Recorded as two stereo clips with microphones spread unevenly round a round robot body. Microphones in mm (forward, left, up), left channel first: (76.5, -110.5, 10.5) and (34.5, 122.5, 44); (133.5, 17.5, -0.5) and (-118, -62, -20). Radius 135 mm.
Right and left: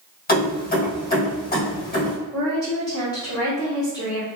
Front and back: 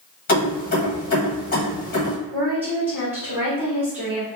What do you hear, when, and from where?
0.3 s keys jangling: 40° right, 1.5 m
2.3 s a woman speaking: 100° right, 1.4 m